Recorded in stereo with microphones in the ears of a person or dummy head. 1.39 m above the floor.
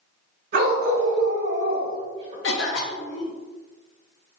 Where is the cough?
60° left (ahead or behind), 0.9 m.